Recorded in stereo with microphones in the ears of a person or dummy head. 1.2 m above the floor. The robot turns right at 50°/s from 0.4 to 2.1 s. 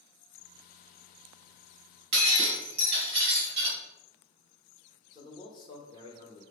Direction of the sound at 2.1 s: 55° right (ahead or behind).